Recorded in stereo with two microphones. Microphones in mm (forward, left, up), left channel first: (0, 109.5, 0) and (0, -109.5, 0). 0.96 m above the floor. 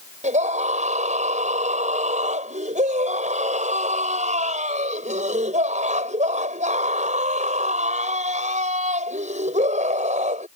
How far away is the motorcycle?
I don't hear a motorcycle.